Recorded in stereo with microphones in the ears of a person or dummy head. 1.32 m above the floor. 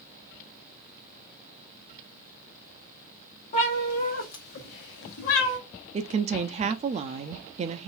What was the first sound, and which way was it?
A cat meowing, 40° left (ahead or behind).